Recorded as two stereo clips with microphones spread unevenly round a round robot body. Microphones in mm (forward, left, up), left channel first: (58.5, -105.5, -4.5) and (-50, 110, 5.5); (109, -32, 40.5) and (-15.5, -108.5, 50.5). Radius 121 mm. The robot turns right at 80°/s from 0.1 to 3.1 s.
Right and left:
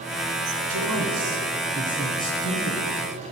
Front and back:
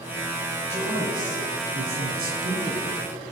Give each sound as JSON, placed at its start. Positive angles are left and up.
{"t": 0.7, "sound": "a man speaking", "azimuth_deg": 105, "distance_m": 3.5}